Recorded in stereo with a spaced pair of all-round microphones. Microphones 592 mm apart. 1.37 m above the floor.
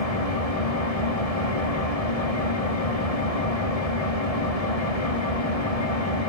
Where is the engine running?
85° left, 3 m.